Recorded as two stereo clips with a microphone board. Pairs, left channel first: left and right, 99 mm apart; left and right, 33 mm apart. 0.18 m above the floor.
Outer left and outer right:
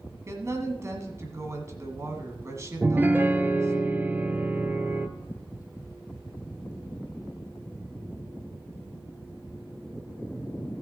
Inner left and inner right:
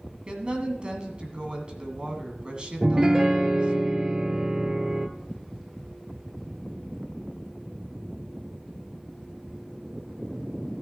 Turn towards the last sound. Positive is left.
turn(degrees=-20)  # may be behind; listen again after turning